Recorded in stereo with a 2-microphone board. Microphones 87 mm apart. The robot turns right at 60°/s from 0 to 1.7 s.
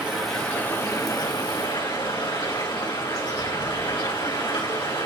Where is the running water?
15° right, 4 m; by 5.1 s 85° left, 4 m.